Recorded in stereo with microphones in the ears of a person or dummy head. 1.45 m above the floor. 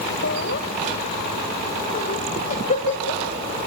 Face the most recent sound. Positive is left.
turn(degrees=35)  # may be behind; listen again after turning